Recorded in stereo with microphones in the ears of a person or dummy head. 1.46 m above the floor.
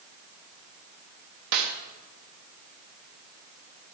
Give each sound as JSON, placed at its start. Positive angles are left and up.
{"t": 1.5, "sound": "a snare drum", "side_deg": -50, "distance_m": 0.7}